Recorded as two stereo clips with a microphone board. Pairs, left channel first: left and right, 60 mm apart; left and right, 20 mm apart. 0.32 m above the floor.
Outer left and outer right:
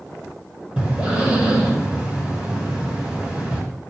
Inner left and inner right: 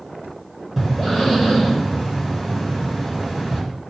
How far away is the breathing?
About 2.5 m.